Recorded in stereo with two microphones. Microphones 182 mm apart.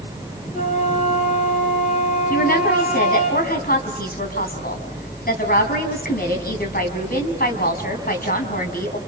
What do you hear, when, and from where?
0.5 s a flute: 40° left (ahead or behind), 5.5 m
2.3 s a woman speaking: 55° left (ahead or behind), 4 m